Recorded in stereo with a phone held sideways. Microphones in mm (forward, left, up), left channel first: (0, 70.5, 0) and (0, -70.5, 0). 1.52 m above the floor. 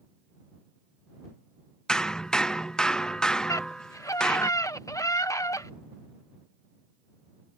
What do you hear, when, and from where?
1.9 s hammering: 5° left (ahead or behind)
3.5 s a scream: 20° left (ahead or behind)